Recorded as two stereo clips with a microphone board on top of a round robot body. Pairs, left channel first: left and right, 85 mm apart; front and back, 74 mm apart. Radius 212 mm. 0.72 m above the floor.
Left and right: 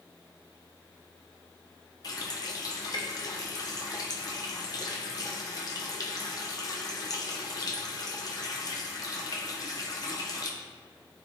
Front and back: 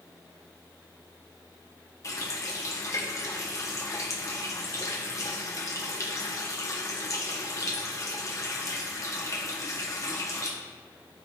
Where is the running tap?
45° left, 0.9 m.